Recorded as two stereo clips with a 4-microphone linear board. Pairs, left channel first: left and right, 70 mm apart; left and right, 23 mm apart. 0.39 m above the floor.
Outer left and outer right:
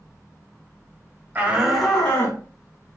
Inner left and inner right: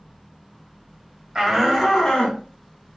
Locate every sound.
1.4 s a shout: 25° right (ahead or behind), 0.9 m; by 2.4 s 40° left (ahead or behind), 1.0 m